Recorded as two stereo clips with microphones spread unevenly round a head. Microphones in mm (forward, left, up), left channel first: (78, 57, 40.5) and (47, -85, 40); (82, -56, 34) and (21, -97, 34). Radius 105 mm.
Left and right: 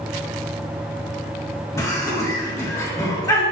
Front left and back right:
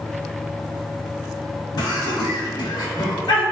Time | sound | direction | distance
1.8 | laughter | 10° left | 1.5 m